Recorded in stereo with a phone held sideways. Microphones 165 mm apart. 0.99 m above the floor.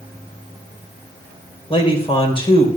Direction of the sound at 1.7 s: 35° left (ahead or behind).